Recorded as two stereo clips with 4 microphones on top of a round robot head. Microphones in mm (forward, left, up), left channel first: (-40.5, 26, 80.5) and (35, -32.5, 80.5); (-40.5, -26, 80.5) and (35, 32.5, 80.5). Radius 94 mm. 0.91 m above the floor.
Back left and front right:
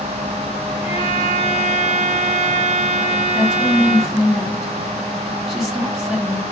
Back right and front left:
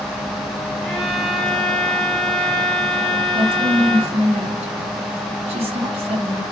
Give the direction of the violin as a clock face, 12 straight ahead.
8 o'clock.